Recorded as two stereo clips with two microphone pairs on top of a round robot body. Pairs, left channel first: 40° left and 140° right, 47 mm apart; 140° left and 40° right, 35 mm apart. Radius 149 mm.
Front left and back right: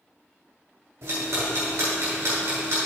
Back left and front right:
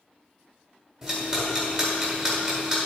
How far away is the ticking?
About 1.5 m.